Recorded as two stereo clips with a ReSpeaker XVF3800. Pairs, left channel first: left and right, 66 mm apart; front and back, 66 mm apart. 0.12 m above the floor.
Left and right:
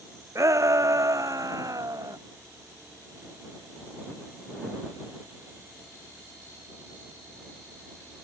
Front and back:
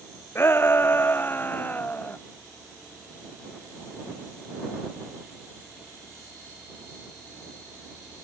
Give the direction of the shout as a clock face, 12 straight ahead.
2 o'clock.